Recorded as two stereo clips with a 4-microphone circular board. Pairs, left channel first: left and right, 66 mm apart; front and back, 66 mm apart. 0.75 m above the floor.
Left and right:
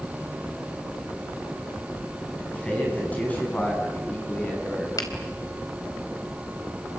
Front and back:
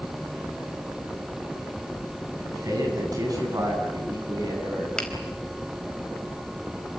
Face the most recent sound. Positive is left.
turn(degrees=80)